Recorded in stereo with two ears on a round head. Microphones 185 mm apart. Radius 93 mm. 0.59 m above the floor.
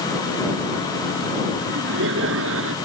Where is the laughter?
65° right (ahead or behind); by 2.8 s 70° right (ahead or behind).